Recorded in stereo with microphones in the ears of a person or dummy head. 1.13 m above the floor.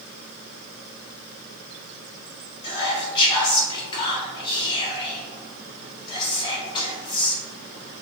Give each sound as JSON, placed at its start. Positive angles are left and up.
{"t": 2.6, "sound": "whispering", "side_deg": 30, "distance_m": 0.8}